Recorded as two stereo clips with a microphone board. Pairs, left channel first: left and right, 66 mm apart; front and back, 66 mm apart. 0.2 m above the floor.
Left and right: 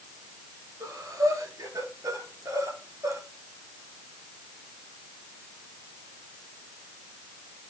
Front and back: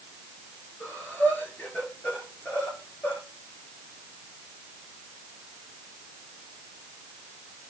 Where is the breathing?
65° right, 7 m.